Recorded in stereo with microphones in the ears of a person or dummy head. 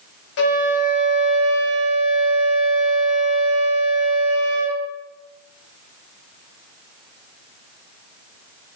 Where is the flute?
65° left (ahead or behind), 2.5 m.